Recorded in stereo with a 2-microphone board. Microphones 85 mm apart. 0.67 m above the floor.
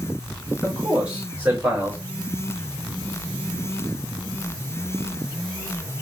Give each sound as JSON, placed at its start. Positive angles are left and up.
{"t": 0.6, "sound": "a man speaking", "side_deg": -20, "distance_m": 3.0}